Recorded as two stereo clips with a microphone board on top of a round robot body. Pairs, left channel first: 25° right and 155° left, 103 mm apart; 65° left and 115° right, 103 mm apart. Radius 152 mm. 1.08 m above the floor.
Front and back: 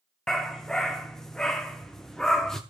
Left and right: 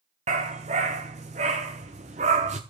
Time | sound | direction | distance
0.3 | a dog barking | 105° right | 0.8 m